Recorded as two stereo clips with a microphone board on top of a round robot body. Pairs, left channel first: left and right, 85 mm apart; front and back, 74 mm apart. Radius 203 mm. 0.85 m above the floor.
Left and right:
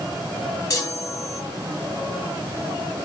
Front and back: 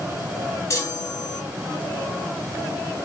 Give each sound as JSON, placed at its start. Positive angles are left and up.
{"t": 0.7, "sound": "a chime", "azimuth_deg": 40, "distance_m": 3.0}